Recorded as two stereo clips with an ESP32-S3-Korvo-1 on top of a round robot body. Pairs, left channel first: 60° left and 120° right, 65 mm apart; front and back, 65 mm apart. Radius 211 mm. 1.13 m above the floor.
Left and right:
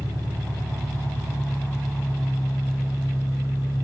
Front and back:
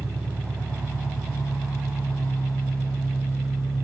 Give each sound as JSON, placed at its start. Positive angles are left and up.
{"t": 0.0, "sound": "an engine running", "azimuth_deg": 80, "distance_m": 1.7}